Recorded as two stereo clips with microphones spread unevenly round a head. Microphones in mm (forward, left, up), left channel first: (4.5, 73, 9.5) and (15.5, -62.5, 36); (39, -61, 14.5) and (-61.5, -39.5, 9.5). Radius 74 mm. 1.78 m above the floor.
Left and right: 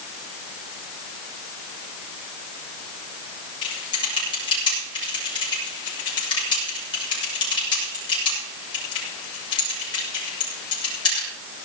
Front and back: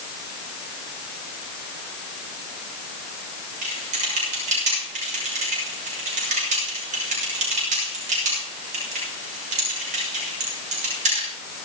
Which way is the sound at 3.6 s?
155° left.